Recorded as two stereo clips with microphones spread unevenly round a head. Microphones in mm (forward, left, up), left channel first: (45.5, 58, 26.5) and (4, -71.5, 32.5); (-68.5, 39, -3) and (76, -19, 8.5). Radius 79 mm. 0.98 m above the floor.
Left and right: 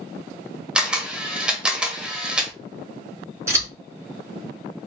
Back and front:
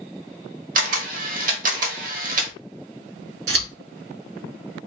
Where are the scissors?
40° right, 2.5 m.